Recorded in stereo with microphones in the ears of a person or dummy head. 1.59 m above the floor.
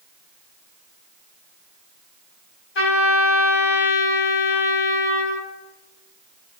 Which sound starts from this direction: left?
A trumpet, at 2.8 s.